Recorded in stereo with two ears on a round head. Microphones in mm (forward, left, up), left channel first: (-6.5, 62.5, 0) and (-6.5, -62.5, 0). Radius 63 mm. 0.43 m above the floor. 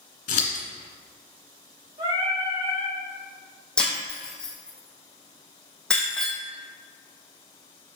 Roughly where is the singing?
Right.